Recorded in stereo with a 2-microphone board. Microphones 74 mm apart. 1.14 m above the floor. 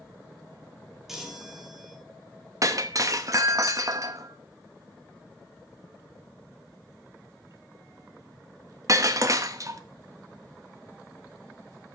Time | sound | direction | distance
1.1 | a chime | 5° right (ahead or behind) | 3 m
2.6 | breaking glass | 45° right (ahead or behind) | 0.9 m